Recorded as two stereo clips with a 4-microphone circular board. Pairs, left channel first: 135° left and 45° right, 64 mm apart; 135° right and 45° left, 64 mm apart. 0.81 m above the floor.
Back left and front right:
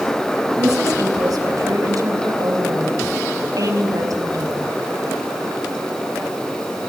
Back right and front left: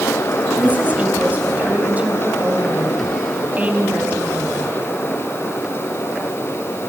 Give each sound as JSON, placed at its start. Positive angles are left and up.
{"t": 0.6, "sound": "a woman speaking", "azimuth_deg": -20, "distance_m": 5.5}